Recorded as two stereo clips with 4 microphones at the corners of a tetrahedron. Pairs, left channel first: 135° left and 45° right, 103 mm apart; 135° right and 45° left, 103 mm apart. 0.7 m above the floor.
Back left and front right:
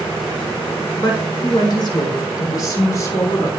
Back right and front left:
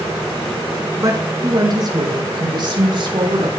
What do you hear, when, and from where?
1.0 s a woman speaking: 95° left, 6 m; by 3.5 s 75° left, 5.5 m